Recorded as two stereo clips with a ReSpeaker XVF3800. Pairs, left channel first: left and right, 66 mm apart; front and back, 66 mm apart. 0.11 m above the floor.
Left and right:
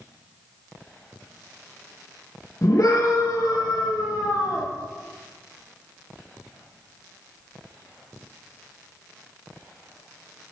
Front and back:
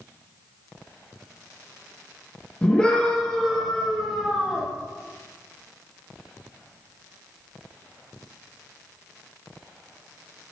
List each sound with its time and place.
2.6 s a scream: 70° left, 3 m; by 4.7 s 100° left, 3.5 m